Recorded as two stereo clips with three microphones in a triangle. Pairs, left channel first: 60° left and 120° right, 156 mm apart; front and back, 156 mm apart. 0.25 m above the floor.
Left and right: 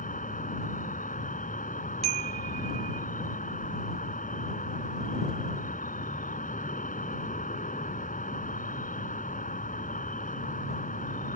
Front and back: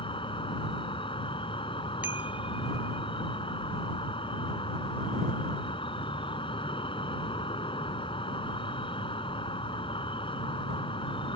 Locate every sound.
0.0 s an insect: 50° left
2.0 s a chime: 105° right